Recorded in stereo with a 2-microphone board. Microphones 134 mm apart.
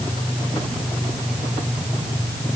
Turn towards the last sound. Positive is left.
No sound to turn to.